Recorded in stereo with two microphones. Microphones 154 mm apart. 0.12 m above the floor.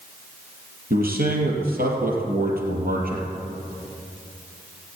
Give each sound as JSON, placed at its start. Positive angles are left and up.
{"t": 0.9, "sound": "a man speaking", "side_deg": -65, "distance_m": 3.0}